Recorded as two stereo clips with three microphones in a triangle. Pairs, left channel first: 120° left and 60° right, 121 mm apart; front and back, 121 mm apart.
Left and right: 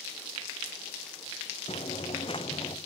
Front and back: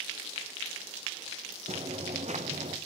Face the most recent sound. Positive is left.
turn(degrees=170)